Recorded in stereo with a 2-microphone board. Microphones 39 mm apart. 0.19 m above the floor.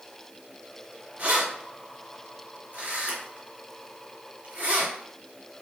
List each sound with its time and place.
1.2 s keys jangling: 40° right (ahead or behind), 1.8 m